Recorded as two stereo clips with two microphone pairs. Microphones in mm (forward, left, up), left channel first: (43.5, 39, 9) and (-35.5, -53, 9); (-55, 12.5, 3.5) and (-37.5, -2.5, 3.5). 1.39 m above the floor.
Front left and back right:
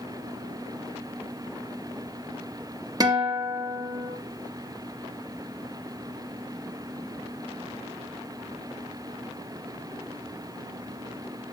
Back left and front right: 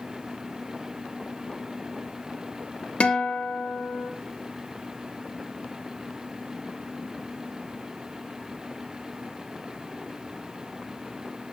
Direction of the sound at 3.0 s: 170° left.